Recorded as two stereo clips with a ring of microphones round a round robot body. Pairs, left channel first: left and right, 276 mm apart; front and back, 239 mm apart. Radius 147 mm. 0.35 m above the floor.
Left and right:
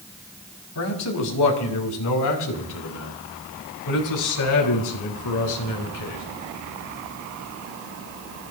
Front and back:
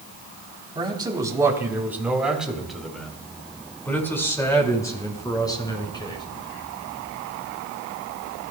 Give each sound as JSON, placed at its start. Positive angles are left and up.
{"t": 0.8, "sound": "a man speaking", "azimuth_deg": 110, "distance_m": 3.5}